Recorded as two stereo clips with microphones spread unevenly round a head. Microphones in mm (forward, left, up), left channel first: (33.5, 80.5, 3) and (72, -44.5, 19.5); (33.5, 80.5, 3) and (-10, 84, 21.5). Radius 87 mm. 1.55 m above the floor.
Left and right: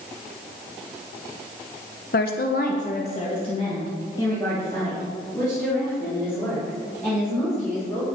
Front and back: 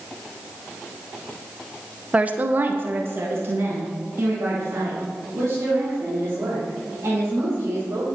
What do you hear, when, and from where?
2.1 s a woman speaking: 130° left, 0.9 m; by 8.1 s 170° right, 5.5 m